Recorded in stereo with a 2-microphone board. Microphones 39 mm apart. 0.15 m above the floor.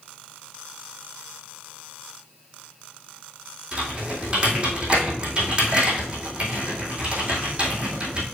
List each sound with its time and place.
3.7 s typing on a keyboard: 30° right (ahead or behind), 2.5 m